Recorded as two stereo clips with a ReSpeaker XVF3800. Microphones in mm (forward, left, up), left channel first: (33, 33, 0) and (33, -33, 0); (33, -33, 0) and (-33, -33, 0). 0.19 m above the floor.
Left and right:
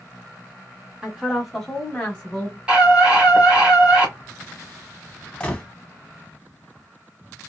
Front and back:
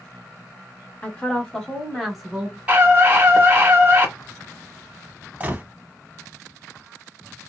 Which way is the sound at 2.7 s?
140° right.